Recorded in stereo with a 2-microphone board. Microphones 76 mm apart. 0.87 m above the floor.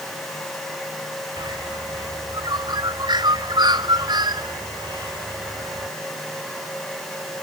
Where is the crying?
I don't hear crying.